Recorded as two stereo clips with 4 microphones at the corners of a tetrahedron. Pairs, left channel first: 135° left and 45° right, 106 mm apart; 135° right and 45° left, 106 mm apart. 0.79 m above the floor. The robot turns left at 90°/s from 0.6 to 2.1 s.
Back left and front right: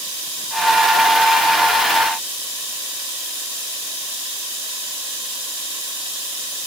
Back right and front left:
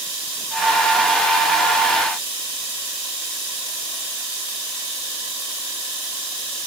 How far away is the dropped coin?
No dropped coin in this recording.